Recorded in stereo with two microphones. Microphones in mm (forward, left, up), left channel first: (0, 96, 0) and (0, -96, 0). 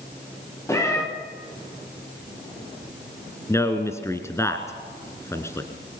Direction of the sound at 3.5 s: 15° left (ahead or behind).